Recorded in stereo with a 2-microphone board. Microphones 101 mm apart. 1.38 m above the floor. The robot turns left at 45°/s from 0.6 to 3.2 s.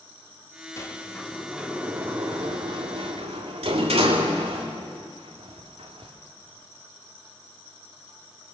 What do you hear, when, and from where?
0.8 s a sliding door: 30° left (ahead or behind), 3 m; by 6.1 s 75° right (ahead or behind), 3 m